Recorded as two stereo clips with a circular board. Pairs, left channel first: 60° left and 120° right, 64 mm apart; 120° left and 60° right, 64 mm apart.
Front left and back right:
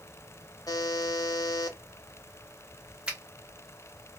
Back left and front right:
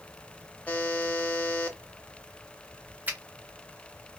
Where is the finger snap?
60° right, 1.0 m.